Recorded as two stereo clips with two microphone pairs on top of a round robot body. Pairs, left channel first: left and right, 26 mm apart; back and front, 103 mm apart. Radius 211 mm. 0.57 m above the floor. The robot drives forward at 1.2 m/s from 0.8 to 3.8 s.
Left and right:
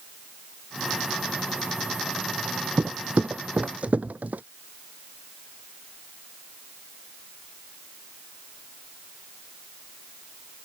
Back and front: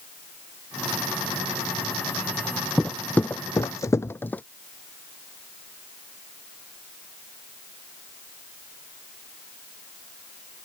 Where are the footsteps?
90° right; by 4.4 s 100° right.